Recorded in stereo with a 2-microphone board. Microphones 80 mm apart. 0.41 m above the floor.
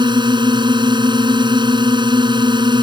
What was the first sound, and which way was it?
A drone, 75° right (ahead or behind).